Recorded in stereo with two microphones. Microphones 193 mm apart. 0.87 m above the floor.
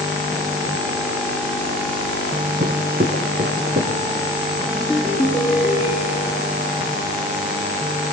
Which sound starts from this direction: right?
Footsteps, at 2.6 s.